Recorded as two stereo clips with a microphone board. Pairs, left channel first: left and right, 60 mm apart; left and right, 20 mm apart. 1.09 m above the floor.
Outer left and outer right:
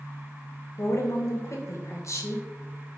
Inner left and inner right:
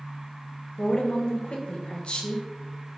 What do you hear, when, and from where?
0.8 s a woman speaking: 55° left (ahead or behind), 0.7 m